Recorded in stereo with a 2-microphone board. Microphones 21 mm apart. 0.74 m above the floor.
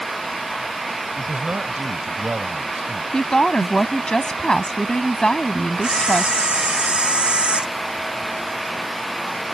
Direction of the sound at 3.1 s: 40° left (ahead or behind).